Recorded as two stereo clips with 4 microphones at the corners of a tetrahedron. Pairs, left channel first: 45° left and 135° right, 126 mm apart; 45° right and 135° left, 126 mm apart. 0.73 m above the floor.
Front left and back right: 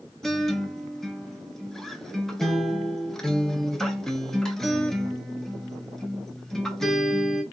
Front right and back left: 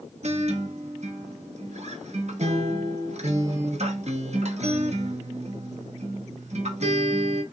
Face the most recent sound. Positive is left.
turn(degrees=130)